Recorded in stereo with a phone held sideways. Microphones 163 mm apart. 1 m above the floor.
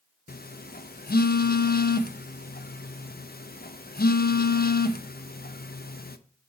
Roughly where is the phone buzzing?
Left.